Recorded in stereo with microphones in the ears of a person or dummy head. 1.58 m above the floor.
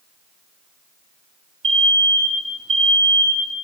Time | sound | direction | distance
1.6 | an alarm | 35° right (ahead or behind) | 2.5 m